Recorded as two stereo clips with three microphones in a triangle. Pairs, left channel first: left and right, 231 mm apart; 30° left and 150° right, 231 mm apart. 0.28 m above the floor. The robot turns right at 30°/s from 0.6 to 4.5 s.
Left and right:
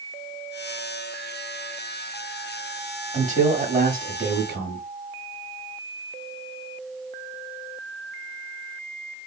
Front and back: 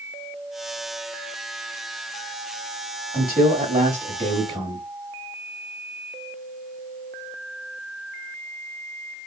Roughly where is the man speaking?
Behind right.